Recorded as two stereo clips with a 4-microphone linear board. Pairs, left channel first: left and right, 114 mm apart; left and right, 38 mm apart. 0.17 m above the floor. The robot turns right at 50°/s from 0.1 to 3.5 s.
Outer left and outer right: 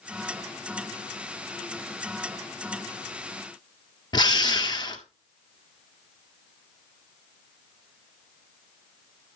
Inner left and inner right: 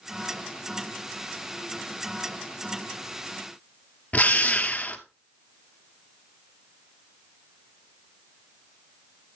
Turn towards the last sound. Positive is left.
turn(degrees=35)  # may be behind; listen again after turning